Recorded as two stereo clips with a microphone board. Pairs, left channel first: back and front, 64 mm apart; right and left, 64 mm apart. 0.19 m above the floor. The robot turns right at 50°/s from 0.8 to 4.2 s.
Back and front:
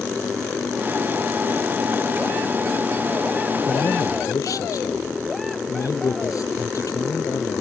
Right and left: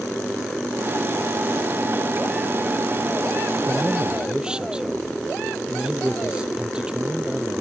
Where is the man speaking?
135° left; by 7.6 s 165° left.